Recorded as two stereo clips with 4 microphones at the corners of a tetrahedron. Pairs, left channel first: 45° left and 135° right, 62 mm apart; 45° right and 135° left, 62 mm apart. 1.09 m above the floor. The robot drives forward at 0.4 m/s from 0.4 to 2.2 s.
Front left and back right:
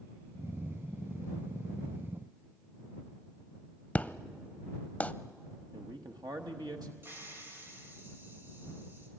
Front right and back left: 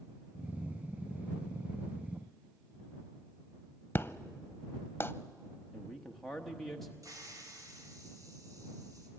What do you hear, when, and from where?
4.0 s an explosion: 15° right, 0.7 m
5.7 s a man speaking: 130° right, 1.1 m
7.0 s a hiss: 170° left, 3.5 m